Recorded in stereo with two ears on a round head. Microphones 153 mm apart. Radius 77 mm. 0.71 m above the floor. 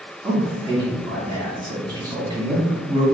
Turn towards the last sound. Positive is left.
turn(degrees=-25)  # may be behind; listen again after turning